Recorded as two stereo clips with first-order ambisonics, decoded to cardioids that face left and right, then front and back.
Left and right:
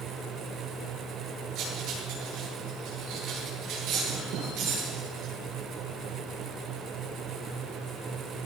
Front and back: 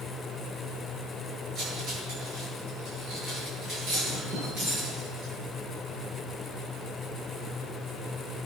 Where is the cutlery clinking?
130° right, 10 m.